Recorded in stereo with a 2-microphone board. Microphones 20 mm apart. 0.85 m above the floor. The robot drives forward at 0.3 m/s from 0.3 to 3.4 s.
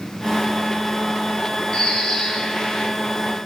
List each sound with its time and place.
1.7 s a bird: 35° left (ahead or behind), 0.7 m; by 2.9 s 25° left (ahead or behind), 0.9 m